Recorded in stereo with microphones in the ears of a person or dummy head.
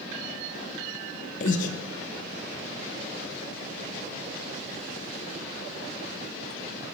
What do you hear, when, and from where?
1.4 s breathing: 45° left (ahead or behind), 0.7 m